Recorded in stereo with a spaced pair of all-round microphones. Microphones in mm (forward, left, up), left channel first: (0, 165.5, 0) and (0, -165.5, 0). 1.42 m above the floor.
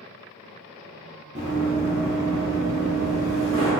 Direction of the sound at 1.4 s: 20° right (ahead or behind).